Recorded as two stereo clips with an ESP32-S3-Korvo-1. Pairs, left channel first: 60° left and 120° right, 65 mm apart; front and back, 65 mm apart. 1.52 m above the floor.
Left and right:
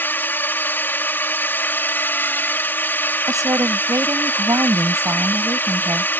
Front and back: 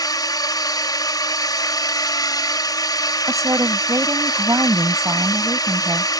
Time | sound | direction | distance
0.0 | a drone | 5° left | ?
3.3 | a woman speaking | 145° right | ?